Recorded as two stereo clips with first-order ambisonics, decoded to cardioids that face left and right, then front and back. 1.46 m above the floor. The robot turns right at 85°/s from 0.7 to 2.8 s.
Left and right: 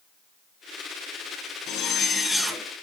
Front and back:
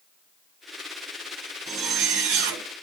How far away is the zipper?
About 0.9 m.